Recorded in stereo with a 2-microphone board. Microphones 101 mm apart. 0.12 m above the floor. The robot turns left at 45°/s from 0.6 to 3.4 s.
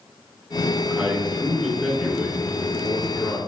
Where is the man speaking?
15° right (ahead or behind), 1.1 m; by 3.4 s 20° left (ahead or behind), 1.1 m.